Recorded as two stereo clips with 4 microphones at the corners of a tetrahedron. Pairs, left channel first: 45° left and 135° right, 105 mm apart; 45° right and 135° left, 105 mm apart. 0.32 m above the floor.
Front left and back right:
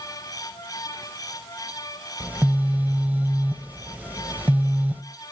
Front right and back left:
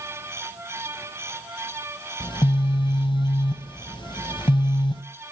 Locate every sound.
2.2 s a phone buzzing: 65° right, 0.9 m